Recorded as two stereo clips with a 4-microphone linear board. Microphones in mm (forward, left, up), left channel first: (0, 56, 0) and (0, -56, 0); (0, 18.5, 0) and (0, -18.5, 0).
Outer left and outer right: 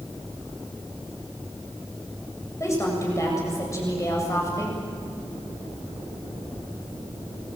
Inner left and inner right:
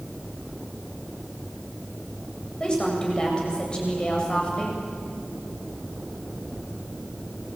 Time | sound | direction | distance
2.6 | a woman speaking | 30° left (ahead or behind) | 7.5 m